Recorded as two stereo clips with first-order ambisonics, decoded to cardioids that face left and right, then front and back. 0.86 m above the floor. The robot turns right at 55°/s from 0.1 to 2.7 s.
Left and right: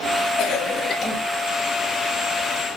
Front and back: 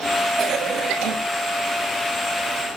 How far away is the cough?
About 1.2 m.